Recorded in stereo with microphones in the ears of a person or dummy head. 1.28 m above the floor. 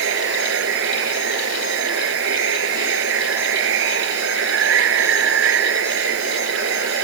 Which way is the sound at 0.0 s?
70° right (ahead or behind).